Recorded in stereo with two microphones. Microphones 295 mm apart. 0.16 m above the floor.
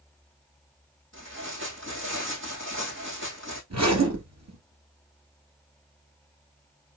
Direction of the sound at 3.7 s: 65° right (ahead or behind).